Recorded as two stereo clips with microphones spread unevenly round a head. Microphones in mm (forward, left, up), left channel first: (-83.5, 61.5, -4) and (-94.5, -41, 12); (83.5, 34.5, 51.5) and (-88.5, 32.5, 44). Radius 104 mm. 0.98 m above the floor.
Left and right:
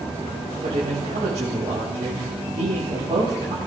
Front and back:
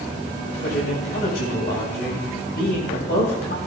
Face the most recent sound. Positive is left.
turn(degrees=-35)